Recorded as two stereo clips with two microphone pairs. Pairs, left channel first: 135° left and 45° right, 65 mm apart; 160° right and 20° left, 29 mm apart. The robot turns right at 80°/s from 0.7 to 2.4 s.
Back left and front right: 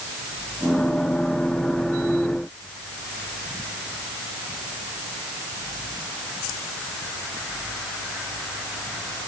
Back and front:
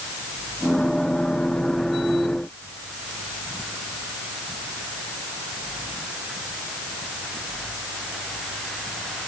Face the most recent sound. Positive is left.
No sound to turn to.